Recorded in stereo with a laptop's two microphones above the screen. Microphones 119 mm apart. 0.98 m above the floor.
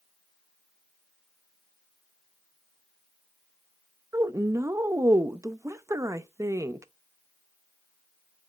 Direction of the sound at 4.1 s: 25° right (ahead or behind).